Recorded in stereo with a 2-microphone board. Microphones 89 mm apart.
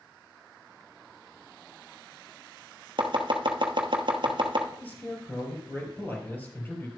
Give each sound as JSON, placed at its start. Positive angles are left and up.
{"t": 3.0, "sound": "chopping", "side_deg": -65, "distance_m": 1.1}
{"t": 4.8, "sound": "a man speaking", "side_deg": 20, "distance_m": 3.5}